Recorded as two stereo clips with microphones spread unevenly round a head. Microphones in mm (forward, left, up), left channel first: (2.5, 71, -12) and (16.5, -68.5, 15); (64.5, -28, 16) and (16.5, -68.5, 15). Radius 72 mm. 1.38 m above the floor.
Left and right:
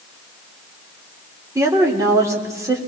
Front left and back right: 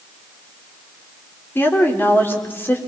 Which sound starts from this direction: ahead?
A woman speaking, at 1.6 s.